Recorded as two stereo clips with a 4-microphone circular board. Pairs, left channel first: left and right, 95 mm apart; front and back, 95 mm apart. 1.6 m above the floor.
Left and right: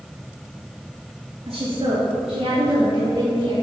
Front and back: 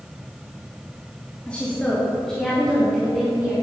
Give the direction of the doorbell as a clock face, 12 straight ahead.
No doorbell in this recording.